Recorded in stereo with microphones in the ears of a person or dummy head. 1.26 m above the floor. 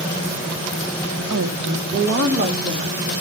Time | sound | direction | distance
1.3 | a woman speaking | 75° right (ahead or behind) | 0.9 m